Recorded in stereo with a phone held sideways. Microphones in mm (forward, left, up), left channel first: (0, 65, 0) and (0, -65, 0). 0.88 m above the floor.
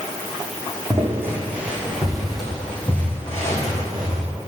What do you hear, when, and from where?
0.9 s footsteps: 20° right (ahead or behind), 2.5 m; by 4.2 s 30° left (ahead or behind), 3 m